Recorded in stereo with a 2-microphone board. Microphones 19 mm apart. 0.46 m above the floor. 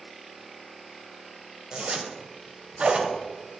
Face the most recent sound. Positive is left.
turn(degrees=-65)  # may be behind; listen again after turning